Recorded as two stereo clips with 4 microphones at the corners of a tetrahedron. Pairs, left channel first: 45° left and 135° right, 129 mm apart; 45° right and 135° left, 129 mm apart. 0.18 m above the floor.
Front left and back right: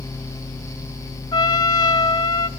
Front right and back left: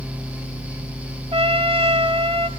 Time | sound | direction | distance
1.3 | a trumpet | 100° left | 0.7 m